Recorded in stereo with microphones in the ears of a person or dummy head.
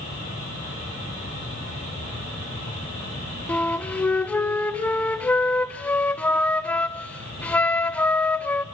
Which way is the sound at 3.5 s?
10° left (ahead or behind).